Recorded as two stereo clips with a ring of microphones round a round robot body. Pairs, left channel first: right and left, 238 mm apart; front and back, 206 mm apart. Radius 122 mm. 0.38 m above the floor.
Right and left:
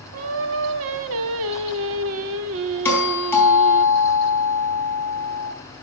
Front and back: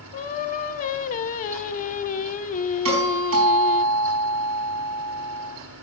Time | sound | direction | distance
0.1 | singing | 55° left | 0.5 m
2.9 | a doorbell | 170° right | 4 m